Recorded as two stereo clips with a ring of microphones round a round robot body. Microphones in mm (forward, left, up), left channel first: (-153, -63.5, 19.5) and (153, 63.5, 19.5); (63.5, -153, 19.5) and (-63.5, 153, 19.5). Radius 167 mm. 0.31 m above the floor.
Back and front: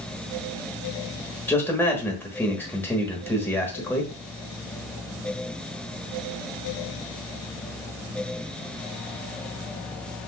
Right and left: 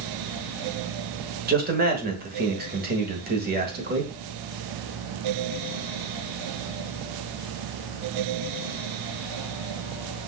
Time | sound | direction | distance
1.5 | a man speaking | 125° left | 1.1 m